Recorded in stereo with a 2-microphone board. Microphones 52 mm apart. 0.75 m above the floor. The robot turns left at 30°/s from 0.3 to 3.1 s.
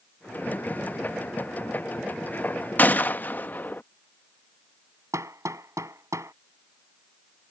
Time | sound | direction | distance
2.8 | a gunshot | 35° left (ahead or behind) | ?
5.1 | hammering | 80° right | ?